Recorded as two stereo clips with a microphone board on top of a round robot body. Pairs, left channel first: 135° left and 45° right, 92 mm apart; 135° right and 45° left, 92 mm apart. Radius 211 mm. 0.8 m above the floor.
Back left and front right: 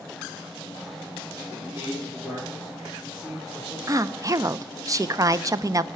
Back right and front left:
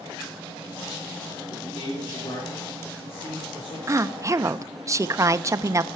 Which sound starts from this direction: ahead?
A woman speaking, at 3.9 s.